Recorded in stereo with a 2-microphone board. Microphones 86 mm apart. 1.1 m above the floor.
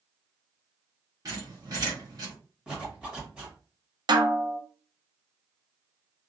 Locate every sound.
1.2 s a squeak: 50° right (ahead or behind), 1.2 m
2.7 s a zipper: 10° right (ahead or behind), 1.2 m
4.1 s a snare drum: 60° right (ahead or behind), 0.5 m